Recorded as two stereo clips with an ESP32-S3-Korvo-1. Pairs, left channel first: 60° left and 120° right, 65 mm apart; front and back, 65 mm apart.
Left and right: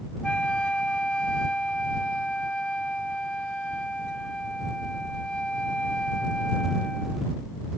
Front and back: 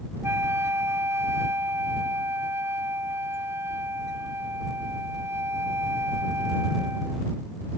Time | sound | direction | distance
0.2 | a flute | 135° left | ?